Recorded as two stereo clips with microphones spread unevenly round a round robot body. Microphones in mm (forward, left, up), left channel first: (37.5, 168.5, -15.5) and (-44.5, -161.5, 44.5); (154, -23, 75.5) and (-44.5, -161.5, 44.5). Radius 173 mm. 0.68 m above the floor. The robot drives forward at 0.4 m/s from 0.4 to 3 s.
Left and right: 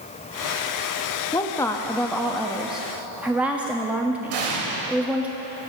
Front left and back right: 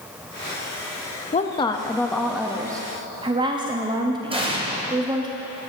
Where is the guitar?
No guitar in this recording.